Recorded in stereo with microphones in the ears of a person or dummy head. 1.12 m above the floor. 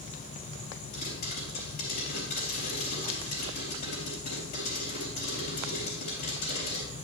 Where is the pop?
45° left (ahead or behind), 3.5 m.